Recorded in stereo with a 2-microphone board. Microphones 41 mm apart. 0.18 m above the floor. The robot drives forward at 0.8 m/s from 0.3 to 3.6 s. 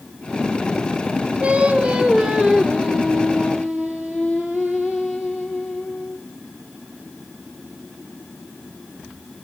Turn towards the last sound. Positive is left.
turn(degrees=-10)  # may be behind; listen again after turning